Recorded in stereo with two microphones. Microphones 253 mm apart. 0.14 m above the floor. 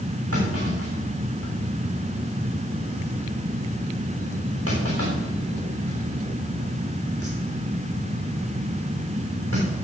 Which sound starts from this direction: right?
A clunk, at 0.3 s.